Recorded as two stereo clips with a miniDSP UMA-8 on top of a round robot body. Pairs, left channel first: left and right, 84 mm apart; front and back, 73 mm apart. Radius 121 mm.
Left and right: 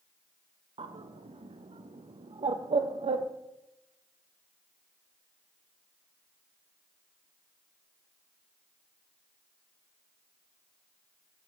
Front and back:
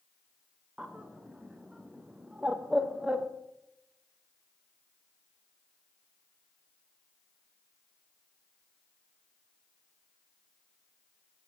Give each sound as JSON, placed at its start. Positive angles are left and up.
{"t": 0.8, "sound": "a bird", "azimuth_deg": -100, "distance_m": 0.5}